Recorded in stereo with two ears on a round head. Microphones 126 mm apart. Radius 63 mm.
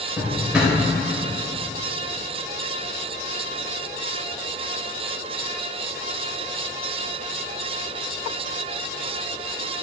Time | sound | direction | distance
0.2 | a drawer | 10° right (ahead or behind) | 3 m